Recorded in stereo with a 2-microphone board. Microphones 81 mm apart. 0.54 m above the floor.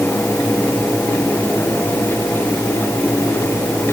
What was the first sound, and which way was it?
Only background noise.